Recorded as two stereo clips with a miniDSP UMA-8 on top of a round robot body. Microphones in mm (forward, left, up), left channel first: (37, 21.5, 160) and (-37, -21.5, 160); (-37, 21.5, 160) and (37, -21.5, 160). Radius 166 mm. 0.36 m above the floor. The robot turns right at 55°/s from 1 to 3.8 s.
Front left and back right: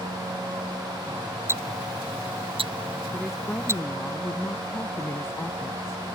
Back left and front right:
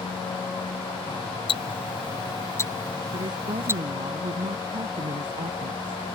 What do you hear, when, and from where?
1.5 s ticking: 150° left; by 3.8 s 85° right
3.1 s a woman speaking: 70° right; by 6.2 s 30° right